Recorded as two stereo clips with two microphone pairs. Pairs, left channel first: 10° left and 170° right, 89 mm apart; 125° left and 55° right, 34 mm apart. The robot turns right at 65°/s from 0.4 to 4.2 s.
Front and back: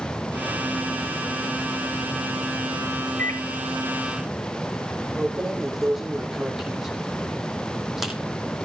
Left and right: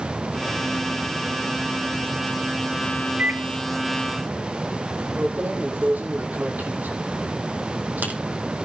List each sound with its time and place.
3.2 s a microwave: 60° right, 2.0 m; by 3.5 s 40° right, 2.0 m
5.2 s keys jangling: 85° right, 5 m